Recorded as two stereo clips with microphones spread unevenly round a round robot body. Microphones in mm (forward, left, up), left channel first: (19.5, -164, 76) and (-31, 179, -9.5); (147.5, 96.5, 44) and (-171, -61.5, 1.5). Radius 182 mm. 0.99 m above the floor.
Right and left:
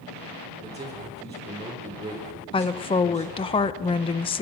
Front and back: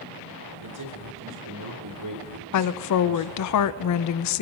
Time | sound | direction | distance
0.6 | a man speaking | 175° left | 4 m
2.5 | a woman speaking | 5° left | 0.5 m